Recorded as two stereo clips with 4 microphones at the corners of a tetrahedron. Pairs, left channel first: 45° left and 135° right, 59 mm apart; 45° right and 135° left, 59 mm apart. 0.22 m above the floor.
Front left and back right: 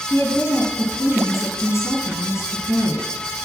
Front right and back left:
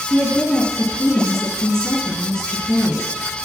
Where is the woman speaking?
30° left, 3 m.